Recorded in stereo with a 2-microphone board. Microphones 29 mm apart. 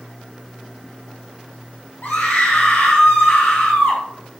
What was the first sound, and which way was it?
A scream, 70° left (ahead or behind).